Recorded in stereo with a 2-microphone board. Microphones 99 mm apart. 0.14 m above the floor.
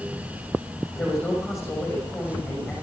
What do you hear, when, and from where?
0.9 s a man speaking: 25° left (ahead or behind), 5.5 m